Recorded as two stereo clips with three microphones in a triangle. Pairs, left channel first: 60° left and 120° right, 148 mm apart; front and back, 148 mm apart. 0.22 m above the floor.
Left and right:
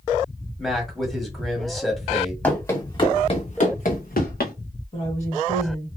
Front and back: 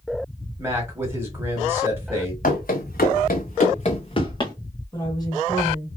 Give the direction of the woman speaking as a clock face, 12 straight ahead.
10 o'clock.